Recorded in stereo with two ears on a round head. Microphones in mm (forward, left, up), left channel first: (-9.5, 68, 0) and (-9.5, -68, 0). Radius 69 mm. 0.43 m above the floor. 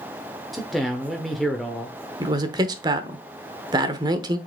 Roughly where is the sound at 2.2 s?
Right.